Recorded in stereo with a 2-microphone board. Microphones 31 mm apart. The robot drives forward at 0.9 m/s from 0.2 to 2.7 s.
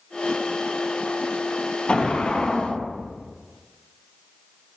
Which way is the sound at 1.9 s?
35° left (ahead or behind).